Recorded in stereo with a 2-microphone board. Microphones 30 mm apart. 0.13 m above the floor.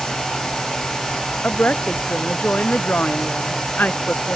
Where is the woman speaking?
70° left (ahead or behind).